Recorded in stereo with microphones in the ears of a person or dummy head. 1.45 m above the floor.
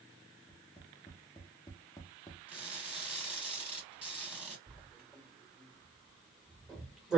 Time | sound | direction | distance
0.5 | tapping | 20° left (ahead or behind) | 0.5 m
2.5 | crushing | 10° right (ahead or behind) | 1.5 m
4.7 | writing | 5° right (ahead or behind) | 1.3 m